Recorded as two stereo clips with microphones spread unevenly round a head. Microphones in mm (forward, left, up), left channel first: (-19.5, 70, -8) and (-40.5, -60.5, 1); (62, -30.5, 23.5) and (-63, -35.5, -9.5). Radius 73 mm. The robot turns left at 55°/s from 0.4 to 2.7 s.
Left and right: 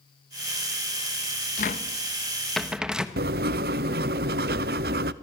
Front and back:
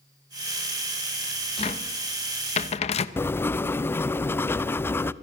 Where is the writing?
75° right, 0.8 m.